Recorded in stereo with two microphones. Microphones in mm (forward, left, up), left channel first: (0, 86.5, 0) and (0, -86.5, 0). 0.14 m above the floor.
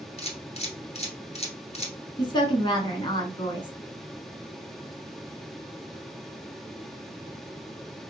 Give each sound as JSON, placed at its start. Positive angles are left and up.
{"t": 0.2, "sound": "a camera shutter", "side_deg": 40, "distance_m": 1.0}
{"t": 2.2, "sound": "a woman speaking", "side_deg": 25, "distance_m": 1.2}